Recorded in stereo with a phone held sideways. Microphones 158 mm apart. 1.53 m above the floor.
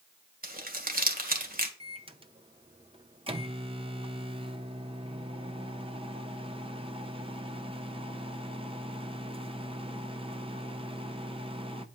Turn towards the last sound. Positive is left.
turn(degrees=-35)  # may be behind; listen again after turning